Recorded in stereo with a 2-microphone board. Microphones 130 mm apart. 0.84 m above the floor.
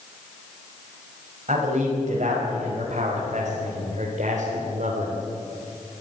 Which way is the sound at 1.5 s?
65° right (ahead or behind).